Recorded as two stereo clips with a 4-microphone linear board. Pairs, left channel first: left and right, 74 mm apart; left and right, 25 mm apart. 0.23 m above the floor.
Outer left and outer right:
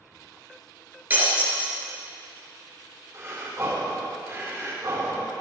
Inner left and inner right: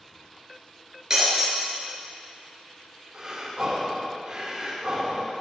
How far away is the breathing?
About 3.5 m.